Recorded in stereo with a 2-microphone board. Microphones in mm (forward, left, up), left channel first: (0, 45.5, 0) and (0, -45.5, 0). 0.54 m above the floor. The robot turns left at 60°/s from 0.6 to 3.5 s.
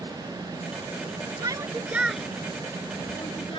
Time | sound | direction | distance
1.4 | a shout | 45° right (ahead or behind) | ?